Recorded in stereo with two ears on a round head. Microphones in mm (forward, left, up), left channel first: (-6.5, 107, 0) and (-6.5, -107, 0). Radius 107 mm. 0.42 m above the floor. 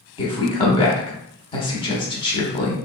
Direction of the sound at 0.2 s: 20° left (ahead or behind).